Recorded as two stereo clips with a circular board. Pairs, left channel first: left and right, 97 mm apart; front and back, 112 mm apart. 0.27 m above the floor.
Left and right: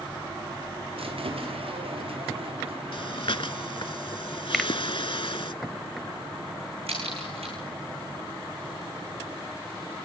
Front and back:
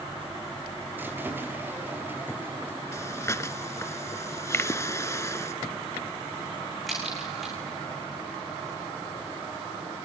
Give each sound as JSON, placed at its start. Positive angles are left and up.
{"t": 1.0, "sound": "a squeak", "azimuth_deg": -105, "distance_m": 4.5}
{"t": 2.9, "sound": "breathing", "azimuth_deg": 65, "distance_m": 0.7}
{"t": 4.5, "sound": "a finger snap", "azimuth_deg": 0, "distance_m": 0.8}
{"t": 6.9, "sound": "a crack", "azimuth_deg": -90, "distance_m": 8.0}